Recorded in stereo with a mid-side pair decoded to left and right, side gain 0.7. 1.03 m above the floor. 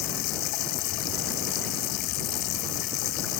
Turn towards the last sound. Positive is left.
turn(degrees=65)